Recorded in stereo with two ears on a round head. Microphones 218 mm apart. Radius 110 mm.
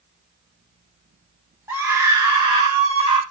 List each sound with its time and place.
1.7 s a scream: 10° right (ahead or behind), 2.5 m; by 3.2 s 25° right (ahead or behind), 3.5 m